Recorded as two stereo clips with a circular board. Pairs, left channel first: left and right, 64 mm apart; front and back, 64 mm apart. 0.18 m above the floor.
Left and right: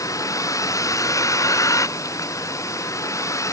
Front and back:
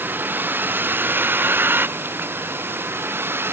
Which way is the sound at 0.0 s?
120° left.